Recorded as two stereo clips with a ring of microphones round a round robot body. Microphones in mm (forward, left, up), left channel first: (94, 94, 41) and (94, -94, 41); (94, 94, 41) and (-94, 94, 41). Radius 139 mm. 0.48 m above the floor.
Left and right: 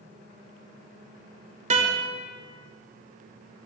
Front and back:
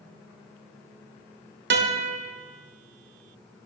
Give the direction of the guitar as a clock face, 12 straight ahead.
5 o'clock.